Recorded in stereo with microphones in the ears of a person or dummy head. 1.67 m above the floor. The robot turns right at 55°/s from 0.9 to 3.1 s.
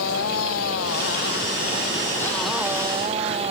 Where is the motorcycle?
95° left; by 3.5 s 145° right.